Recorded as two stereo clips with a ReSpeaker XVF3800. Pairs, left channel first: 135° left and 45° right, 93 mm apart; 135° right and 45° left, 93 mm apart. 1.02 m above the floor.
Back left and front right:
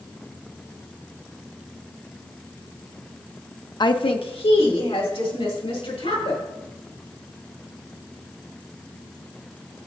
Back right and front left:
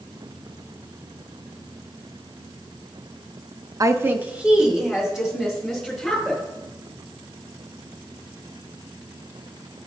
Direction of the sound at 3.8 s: 95° left.